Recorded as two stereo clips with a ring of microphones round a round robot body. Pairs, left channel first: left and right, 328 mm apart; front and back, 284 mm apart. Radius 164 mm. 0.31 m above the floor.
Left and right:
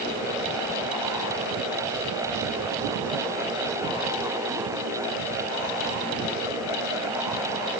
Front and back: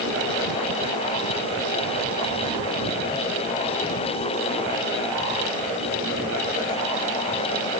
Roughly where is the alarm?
I don't hear an alarm.